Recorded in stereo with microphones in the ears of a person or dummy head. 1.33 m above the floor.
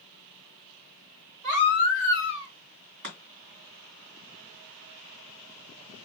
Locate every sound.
1.4 s a baby crying: 50° right (ahead or behind), 4 m
3.0 s chopping: 55° right (ahead or behind), 2.0 m